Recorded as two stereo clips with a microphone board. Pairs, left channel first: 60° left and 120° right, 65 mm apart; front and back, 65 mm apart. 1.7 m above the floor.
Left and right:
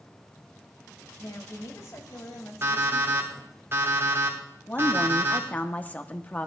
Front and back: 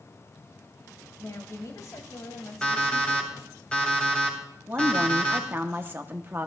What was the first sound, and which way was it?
A woman speaking, 35° left.